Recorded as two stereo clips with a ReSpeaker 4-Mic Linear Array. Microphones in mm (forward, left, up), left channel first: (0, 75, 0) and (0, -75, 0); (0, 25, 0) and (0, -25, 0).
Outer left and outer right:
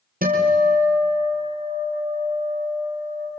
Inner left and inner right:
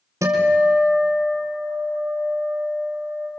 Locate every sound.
0.2 s a guitar: 75° right (ahead or behind), 4.5 m